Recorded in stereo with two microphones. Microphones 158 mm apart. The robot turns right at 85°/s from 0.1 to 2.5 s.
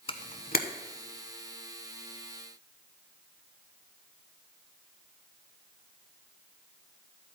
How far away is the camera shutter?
About 0.8 m.